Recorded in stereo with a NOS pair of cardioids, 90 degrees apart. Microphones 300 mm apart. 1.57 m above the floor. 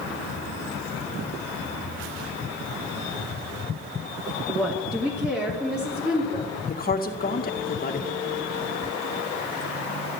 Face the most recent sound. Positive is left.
turn(degrees=30)